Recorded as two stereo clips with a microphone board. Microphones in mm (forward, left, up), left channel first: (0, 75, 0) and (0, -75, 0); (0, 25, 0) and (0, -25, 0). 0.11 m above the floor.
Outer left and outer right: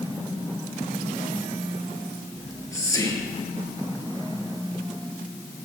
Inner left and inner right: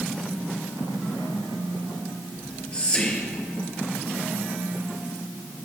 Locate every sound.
2.4 s whispering: 20° left (ahead or behind), 1.7 m